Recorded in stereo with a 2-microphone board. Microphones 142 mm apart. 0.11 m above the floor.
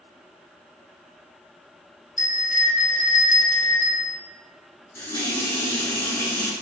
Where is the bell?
70° left (ahead or behind), 0.7 m.